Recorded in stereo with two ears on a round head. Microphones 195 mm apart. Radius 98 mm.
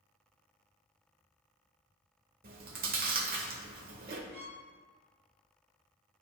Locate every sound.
2.4 s chewing: 45° right (ahead or behind), 1.1 m
4.3 s a violin: 30° right (ahead or behind), 1.6 m